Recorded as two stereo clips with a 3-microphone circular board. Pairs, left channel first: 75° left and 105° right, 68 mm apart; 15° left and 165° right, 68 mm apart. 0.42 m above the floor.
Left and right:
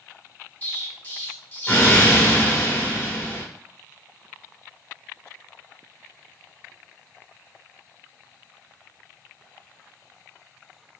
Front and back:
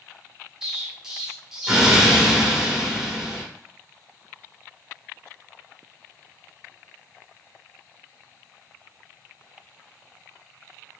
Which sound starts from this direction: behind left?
An explosion, at 0.6 s.